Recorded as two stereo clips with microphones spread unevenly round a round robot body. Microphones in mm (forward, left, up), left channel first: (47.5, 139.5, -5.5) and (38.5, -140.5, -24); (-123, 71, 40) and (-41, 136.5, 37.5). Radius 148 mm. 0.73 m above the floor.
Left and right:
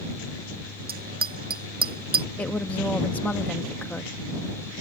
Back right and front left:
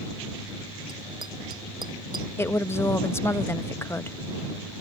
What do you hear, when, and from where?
0.9 s a bicycle bell: 35° right
2.4 s a woman speaking: 175° left